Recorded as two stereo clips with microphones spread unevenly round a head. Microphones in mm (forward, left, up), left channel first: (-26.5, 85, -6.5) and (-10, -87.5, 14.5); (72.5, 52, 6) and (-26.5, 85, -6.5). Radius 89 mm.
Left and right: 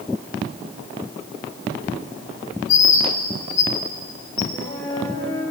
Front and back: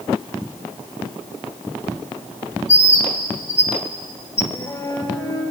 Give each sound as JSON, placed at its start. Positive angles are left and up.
{"t": 2.7, "sound": "a bird", "azimuth_deg": 45, "distance_m": 4.0}
{"t": 4.5, "sound": "a flute", "azimuth_deg": 35, "distance_m": 10.0}